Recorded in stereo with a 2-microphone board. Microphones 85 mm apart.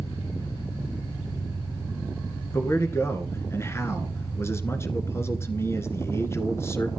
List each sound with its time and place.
0.0 s an engine running: 85° left, 6 m
2.5 s a man speaking: 30° left (ahead or behind), 1.7 m